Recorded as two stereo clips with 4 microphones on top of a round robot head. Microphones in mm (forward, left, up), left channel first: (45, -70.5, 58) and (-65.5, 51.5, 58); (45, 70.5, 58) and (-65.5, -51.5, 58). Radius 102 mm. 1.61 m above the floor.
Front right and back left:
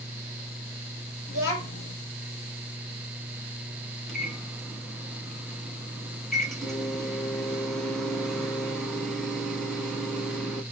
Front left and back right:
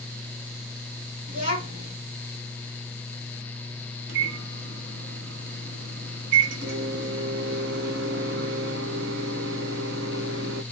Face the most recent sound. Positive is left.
turn(degrees=-135)